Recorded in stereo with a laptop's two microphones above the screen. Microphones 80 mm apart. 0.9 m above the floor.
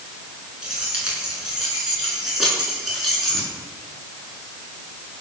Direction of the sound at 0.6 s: 10° right (ahead or behind).